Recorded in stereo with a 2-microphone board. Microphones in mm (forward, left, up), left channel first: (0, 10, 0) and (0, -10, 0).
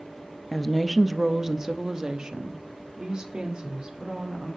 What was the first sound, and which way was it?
A woman speaking, 15° left (ahead or behind).